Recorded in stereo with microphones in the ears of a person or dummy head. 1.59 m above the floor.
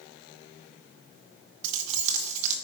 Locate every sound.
1.6 s keys jangling: 45° right (ahead or behind), 0.9 m